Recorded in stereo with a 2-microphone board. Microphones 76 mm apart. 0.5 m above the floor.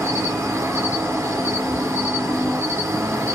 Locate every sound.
0.0 s an insect: 35° right (ahead or behind), 1.2 m